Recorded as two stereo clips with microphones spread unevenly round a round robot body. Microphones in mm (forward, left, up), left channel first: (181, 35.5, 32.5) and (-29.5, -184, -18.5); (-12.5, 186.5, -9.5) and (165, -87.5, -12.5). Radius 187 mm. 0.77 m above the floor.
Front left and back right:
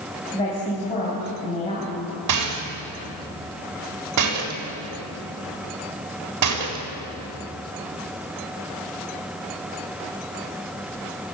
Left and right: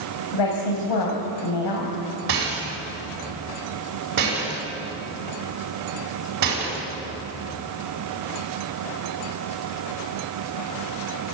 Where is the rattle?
115° right, 4 m.